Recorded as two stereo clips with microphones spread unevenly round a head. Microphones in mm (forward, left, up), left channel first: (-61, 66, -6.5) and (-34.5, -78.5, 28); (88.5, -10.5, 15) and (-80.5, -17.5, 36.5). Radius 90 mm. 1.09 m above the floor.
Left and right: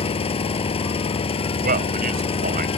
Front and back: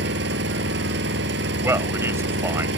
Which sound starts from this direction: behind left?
An engine running, at 0.0 s.